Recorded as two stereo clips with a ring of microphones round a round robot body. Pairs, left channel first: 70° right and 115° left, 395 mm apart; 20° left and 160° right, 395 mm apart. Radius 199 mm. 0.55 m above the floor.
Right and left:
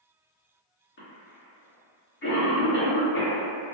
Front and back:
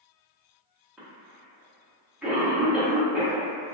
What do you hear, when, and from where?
1.0 s a cough: 70° right, 1.1 m